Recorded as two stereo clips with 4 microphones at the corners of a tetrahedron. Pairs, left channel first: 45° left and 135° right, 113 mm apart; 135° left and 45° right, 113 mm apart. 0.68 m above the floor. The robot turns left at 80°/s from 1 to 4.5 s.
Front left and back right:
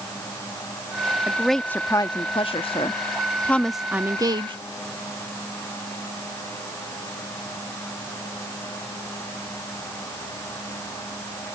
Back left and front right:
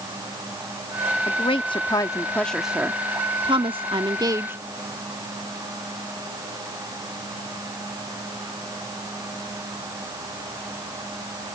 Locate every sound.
1.3 s a woman speaking: 150° left; by 4.5 s 105° right